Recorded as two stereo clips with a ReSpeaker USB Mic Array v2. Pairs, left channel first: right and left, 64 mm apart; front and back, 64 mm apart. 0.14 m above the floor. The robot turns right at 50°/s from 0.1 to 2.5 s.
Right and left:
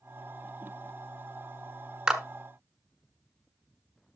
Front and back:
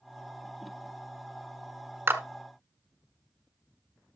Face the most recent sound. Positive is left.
turn(degrees=180)